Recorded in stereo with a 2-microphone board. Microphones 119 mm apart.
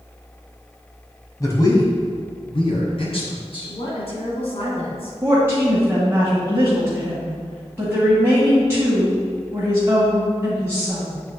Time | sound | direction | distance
1.4 | a man speaking | 30° left (ahead or behind) | 1.7 m
3.7 | a woman speaking | 55° left (ahead or behind) | 2.5 m
5.2 | a woman speaking | 20° right (ahead or behind) | 1.7 m